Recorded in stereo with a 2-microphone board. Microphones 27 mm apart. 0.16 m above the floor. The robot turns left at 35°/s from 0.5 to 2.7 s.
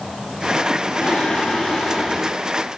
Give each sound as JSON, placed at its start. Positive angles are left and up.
{"t": 1.0, "sound": "singing", "azimuth_deg": 65, "distance_m": 4.0}